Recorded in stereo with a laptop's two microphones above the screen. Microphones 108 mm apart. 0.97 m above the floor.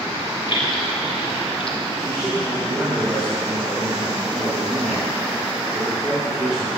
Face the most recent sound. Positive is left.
turn(degrees=-10)  # may be behind; listen again after turning